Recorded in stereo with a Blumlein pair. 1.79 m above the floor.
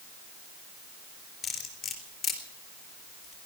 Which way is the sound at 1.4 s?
20° left.